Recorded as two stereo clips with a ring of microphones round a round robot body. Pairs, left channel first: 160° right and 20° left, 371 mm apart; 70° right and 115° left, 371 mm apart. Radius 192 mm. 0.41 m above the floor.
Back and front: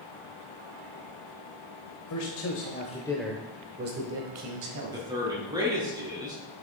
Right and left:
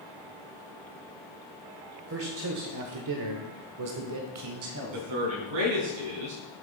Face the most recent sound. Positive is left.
turn(degrees=100)